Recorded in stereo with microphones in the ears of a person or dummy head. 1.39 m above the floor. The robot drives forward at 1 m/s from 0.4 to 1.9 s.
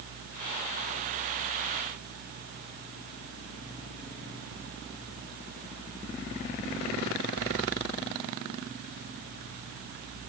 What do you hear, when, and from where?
Only background noise.